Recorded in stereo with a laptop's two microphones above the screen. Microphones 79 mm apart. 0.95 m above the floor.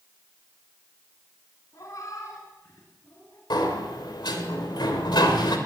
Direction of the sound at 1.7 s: 45° left (ahead or behind).